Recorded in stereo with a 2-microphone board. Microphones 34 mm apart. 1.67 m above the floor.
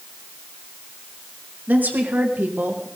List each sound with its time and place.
1.7 s a woman speaking: 60° right (ahead or behind), 2.5 m; by 2.9 s 65° right (ahead or behind), 2 m